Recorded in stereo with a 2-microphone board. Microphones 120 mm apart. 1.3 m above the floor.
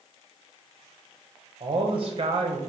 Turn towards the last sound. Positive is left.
turn(degrees=-45)  # may be behind; listen again after turning